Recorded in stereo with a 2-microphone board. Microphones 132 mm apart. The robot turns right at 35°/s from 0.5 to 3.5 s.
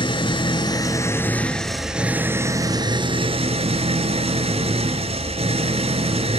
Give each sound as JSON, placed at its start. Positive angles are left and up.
{"t": 0.0, "sound": "an engine running", "azimuth_deg": 135, "distance_m": 1.3}